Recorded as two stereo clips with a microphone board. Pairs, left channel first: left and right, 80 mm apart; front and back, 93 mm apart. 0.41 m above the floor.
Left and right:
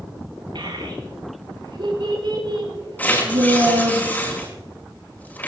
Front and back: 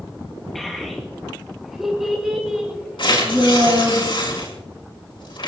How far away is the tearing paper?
About 4.5 m.